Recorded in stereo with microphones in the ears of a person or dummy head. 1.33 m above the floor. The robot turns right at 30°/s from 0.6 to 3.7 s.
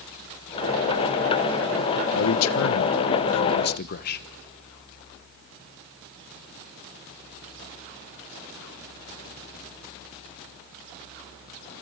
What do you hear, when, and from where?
2.1 s a man speaking: 75° left, 1.0 m; by 4.3 s 125° left, 1.0 m